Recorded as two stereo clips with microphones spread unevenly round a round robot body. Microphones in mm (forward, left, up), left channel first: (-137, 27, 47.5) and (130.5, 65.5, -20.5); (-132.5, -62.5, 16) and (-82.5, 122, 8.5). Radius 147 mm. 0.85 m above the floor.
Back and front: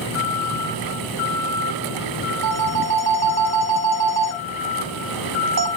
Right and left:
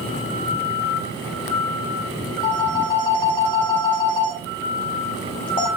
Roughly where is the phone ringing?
Ahead right.